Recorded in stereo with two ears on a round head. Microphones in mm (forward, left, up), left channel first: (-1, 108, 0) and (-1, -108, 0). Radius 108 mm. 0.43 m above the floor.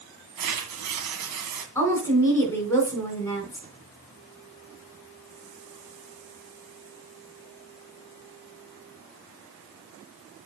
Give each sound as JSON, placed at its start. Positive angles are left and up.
{"t": 0.4, "sound": "tearing paper", "side_deg": -75, "distance_m": 2.0}
{"t": 1.8, "sound": "a woman speaking", "side_deg": 10, "distance_m": 3.5}